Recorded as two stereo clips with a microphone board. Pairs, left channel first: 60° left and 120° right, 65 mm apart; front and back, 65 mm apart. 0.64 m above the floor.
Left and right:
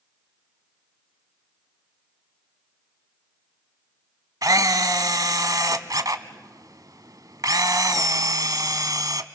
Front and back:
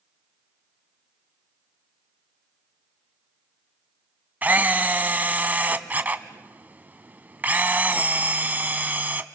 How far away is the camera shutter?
About 1.0 m.